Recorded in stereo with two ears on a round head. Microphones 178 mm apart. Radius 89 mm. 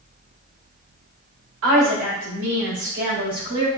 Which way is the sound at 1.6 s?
75° right (ahead or behind).